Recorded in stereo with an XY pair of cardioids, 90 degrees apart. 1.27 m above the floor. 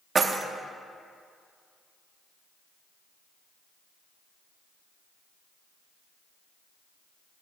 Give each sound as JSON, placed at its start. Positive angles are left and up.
{"t": 0.1, "sound": "keys jangling", "azimuth_deg": -40, "distance_m": 0.7}